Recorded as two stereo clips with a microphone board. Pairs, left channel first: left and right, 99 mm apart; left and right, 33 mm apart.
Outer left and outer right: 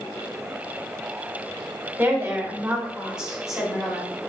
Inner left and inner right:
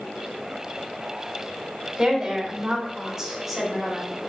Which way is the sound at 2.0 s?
20° right (ahead or behind).